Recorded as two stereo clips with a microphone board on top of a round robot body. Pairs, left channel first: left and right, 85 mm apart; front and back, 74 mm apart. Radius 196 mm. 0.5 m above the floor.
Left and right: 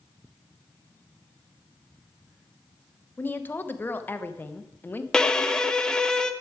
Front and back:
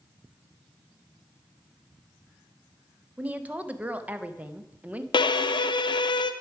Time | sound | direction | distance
3.2 | a woman speaking | 130° left | 1.1 m
5.1 | a violin | 5° left | 0.6 m